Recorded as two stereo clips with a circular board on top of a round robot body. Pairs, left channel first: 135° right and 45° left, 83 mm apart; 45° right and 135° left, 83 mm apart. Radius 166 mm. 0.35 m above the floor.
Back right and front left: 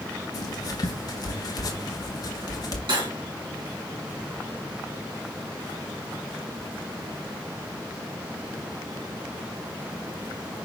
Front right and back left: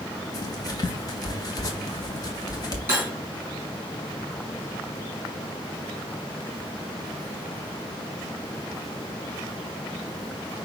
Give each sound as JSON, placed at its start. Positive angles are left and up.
{"t": 0.3, "sound": "writing", "azimuth_deg": -90, "distance_m": 0.7}
{"t": 2.9, "sound": "cutlery clinking", "azimuth_deg": 65, "distance_m": 3.0}